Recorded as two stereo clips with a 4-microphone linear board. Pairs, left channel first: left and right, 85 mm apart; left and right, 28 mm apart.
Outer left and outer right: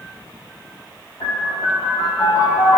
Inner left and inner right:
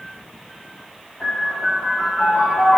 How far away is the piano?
About 1.8 m.